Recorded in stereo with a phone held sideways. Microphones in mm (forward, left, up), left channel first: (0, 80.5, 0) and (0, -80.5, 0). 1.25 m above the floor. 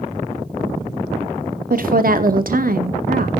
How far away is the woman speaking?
About 0.8 m.